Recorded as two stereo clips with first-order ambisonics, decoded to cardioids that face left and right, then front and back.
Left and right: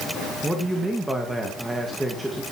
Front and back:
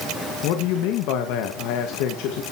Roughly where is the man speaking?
Ahead.